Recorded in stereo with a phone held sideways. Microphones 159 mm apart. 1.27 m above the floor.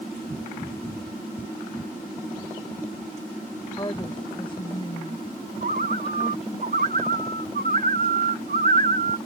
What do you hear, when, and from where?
3.8 s a woman speaking: 25° left (ahead or behind); by 6.6 s 40° left (ahead or behind)
5.6 s a bird: 65° right (ahead or behind)